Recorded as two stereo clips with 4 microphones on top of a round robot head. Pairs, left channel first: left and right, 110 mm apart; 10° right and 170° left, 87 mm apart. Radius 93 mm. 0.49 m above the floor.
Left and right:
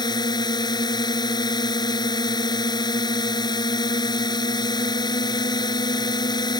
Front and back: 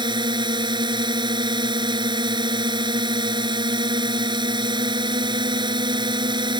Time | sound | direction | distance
0.0 | a drone | 140° left | ?